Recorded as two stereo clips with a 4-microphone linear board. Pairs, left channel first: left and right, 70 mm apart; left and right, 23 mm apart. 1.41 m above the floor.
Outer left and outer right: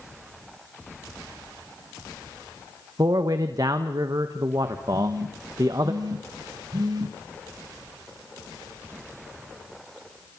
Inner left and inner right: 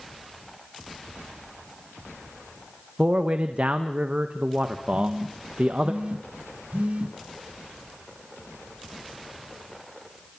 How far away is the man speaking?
About 1.6 m.